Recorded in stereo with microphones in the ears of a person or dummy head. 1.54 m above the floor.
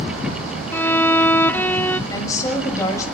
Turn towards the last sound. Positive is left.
turn(degrees=20)  # may be behind; listen again after turning